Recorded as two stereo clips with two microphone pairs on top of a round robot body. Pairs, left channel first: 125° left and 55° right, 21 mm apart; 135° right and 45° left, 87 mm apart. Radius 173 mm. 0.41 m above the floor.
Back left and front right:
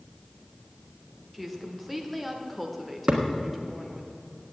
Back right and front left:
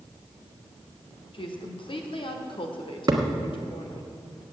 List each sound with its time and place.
1.3 s a woman speaking: 140° right, 1.5 m
3.1 s a thud: 10° right, 1.4 m